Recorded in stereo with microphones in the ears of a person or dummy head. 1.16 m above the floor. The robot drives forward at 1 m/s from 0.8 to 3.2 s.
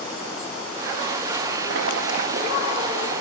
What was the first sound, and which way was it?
Boiling, 65° right (ahead or behind).